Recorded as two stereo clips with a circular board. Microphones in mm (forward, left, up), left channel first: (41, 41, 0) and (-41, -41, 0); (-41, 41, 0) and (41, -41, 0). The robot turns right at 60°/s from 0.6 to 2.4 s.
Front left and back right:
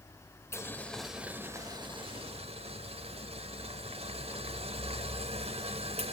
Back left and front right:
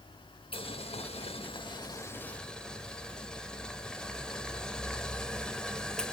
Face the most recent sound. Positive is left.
turn(degrees=-145)